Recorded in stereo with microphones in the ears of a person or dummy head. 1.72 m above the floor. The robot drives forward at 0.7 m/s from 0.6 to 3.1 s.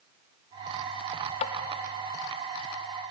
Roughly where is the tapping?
Left.